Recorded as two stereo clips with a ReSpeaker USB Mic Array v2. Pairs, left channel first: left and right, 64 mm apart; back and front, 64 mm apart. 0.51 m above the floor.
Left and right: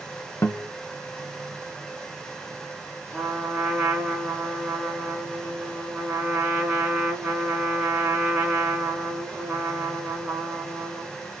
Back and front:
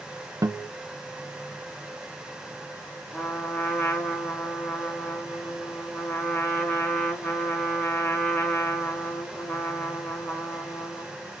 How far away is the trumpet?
About 1.5 m.